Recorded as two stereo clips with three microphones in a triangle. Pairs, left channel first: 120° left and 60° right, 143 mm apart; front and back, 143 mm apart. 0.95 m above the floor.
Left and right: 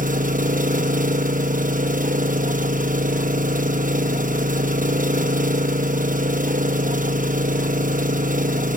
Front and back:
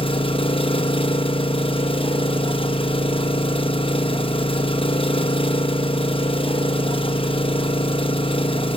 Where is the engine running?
50° right, 0.9 m.